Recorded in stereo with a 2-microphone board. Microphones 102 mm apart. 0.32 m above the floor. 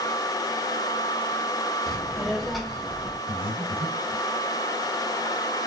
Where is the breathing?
35° right (ahead or behind), 1.6 m.